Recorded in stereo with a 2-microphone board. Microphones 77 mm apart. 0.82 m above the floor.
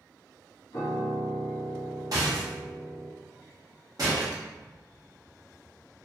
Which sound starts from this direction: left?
A piano, at 0.7 s.